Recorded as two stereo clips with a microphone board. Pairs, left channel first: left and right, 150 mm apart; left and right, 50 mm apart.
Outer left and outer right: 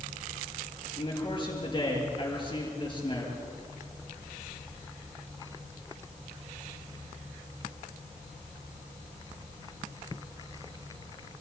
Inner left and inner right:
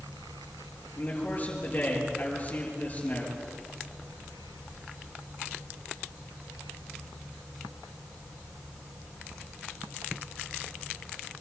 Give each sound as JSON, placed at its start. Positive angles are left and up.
{"t": 1.0, "sound": "a man speaking", "side_deg": 35, "distance_m": 6.0}